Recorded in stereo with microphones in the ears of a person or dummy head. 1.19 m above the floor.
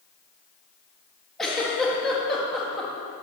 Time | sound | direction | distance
1.4 | a giggle | centre (ahead or behind) | 1.8 m